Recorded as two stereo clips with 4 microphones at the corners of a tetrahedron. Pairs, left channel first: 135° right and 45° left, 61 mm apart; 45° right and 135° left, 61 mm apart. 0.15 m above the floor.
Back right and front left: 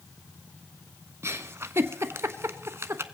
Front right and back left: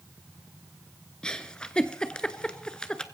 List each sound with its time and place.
1.2 s a giggle: 25° left, 0.6 m